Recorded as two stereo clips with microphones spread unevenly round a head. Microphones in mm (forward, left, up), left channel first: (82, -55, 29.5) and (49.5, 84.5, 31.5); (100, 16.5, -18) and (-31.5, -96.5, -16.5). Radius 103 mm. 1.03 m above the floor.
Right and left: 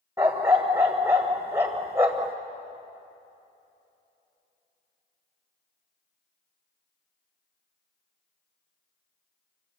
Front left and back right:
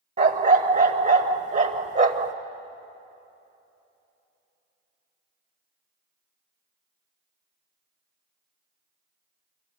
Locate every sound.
0.2 s a dog barking: straight behind, 1.1 m